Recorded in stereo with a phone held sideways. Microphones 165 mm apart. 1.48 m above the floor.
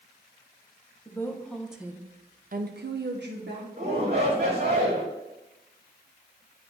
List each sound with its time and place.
1.1 s a woman speaking: 15° left (ahead or behind), 1.2 m; by 3.7 s 70° right (ahead or behind), 1.2 m
3.8 s a shout: 60° right (ahead or behind), 1.5 m